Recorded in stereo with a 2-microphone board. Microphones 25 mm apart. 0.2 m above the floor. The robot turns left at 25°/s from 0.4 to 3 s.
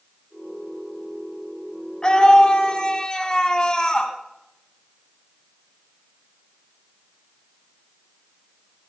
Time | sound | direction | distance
2.0 | a scream | 35° left (ahead or behind) | 1.4 m